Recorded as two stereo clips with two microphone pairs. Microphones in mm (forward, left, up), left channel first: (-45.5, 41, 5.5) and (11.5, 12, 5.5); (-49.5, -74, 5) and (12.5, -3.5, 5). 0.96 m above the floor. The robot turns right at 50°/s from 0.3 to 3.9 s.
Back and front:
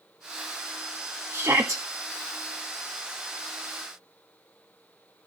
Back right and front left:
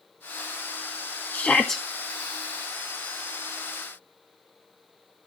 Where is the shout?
65° right, 1.6 m; by 1.8 s 40° right, 1.6 m.